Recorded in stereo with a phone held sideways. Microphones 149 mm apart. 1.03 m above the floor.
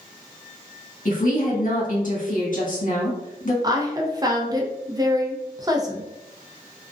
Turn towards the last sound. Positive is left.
turn(degrees=-25)  # may be behind; listen again after turning